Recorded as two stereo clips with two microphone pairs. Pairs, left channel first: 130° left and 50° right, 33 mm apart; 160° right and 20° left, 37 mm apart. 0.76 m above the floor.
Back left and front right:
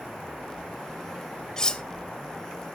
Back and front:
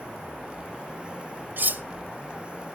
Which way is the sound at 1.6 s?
60° left.